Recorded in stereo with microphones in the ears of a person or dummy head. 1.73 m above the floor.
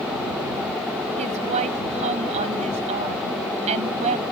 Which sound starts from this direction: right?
A woman speaking, at 1.2 s.